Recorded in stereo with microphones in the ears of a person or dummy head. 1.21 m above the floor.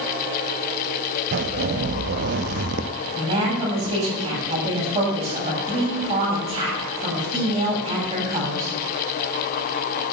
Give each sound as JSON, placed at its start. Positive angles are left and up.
{"t": 1.3, "sound": "a zipper", "side_deg": -45, "distance_m": 0.8}
{"t": 3.1, "sound": "a woman speaking", "side_deg": -30, "distance_m": 8.5}